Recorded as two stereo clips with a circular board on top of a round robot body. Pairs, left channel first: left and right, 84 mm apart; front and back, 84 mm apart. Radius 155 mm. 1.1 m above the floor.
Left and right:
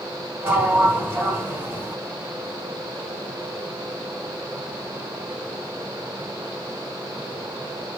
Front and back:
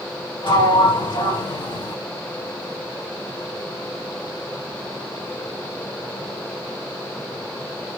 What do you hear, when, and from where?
0.4 s a sliding door: 25° right, 1.8 m